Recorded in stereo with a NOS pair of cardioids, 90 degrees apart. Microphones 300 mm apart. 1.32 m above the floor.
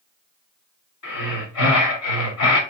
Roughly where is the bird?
I don't hear a bird.